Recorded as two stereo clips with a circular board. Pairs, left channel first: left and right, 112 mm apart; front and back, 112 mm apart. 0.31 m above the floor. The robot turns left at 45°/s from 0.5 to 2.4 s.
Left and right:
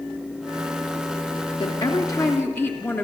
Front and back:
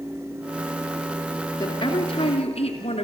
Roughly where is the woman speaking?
Ahead left.